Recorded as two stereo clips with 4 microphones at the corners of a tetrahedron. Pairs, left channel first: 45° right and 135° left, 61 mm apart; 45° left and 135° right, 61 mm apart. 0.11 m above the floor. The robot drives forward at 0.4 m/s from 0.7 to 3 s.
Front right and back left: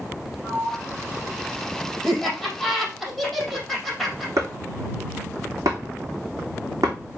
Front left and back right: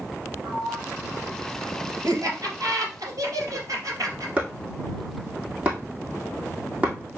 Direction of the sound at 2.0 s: 125° right.